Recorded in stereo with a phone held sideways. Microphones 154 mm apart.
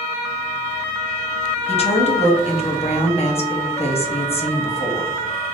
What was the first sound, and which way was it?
A woman speaking, 45° left (ahead or behind).